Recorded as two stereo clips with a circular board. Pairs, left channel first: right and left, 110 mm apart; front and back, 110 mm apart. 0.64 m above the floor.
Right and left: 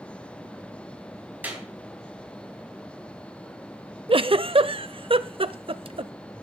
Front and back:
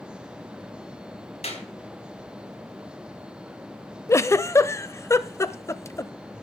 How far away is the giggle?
About 0.6 m.